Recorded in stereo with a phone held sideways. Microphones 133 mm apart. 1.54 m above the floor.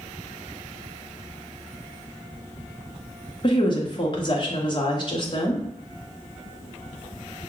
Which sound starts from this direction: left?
A woman speaking, at 3.4 s.